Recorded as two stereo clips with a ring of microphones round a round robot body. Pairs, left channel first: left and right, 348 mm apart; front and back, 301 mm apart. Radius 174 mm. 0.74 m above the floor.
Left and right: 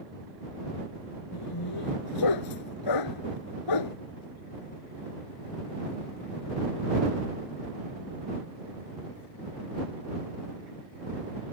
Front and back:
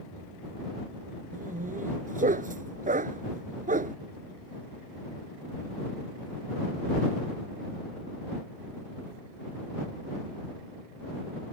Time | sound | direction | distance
1.3 | a dog barking | 115° left | ?